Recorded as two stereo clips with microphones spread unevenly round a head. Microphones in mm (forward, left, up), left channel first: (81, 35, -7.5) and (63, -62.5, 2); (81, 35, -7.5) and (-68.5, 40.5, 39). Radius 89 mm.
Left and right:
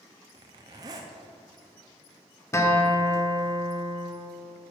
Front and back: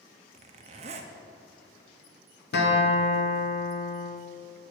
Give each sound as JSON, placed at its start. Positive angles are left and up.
{"t": 0.3, "sound": "a zipper", "azimuth_deg": -155, "distance_m": 0.5}
{"t": 2.5, "sound": "a guitar", "azimuth_deg": 15, "distance_m": 1.5}